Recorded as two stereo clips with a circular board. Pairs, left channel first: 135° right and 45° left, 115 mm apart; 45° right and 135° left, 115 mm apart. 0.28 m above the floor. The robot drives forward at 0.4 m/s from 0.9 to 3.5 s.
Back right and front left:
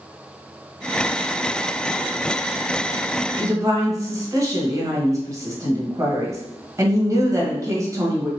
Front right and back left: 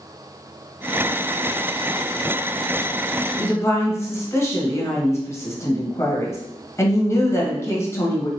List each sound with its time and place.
3.4 s a woman speaking: 5° left, 1.3 m